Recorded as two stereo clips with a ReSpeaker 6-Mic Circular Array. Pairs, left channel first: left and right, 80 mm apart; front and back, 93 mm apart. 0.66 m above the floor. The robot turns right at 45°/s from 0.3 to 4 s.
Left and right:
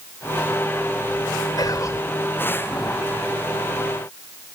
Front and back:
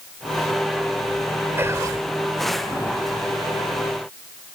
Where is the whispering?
115° left; by 2.0 s 135° left.